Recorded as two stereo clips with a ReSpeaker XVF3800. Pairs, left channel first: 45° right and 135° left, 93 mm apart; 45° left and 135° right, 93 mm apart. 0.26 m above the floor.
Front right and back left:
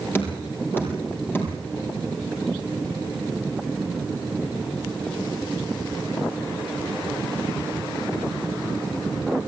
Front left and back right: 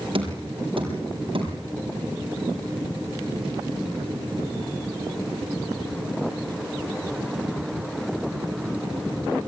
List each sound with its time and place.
0.1 s knocking: 110° right, 6 m